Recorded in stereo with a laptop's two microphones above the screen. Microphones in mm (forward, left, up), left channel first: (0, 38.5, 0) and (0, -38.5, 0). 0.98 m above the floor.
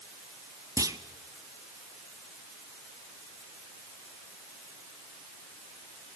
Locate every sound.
0.8 s a clunk: 50° right (ahead or behind), 1.2 m